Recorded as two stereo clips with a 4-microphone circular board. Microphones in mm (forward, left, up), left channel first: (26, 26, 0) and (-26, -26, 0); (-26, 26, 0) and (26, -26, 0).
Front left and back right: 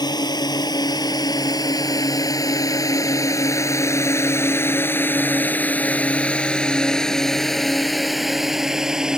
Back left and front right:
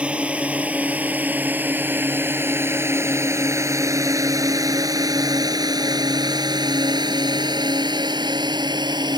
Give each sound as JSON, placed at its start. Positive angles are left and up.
{"t": 0.0, "sound": "a drone", "azimuth_deg": 30}